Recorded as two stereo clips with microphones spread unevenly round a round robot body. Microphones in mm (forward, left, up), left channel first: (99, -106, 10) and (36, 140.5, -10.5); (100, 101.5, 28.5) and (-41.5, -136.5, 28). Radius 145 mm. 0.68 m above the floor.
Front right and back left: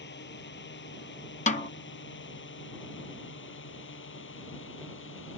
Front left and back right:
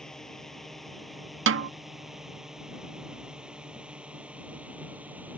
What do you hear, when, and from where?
0.0 s a drone: 30° right; by 5.4 s 35° right
1.5 s a snare drum: 135° right